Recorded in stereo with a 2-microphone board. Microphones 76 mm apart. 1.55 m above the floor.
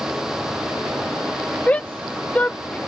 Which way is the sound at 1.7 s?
20° left (ahead or behind).